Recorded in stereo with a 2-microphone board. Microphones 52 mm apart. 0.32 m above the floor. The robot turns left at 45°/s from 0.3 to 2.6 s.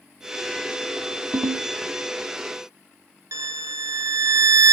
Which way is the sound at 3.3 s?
75° right (ahead or behind).